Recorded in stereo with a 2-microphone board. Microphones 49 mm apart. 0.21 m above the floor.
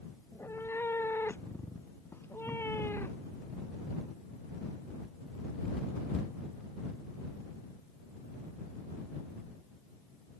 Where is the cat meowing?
55° left (ahead or behind).